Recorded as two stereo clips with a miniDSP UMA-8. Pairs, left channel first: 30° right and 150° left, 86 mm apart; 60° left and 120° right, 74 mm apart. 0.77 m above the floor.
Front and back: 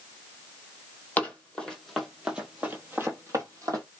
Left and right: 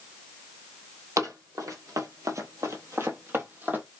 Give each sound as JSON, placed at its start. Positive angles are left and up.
{"t": 1.2, "sound": "running footsteps", "azimuth_deg": -95, "distance_m": 1.2}